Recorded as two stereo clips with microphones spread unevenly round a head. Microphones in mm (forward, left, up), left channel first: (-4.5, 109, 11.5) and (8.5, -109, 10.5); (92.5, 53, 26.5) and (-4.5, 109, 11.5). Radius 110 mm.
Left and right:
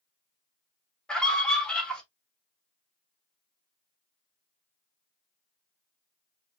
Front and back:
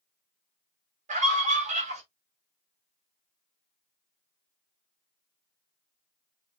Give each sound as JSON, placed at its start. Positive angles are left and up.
{"t": 1.1, "sound": "a scream", "azimuth_deg": 180, "distance_m": 1.6}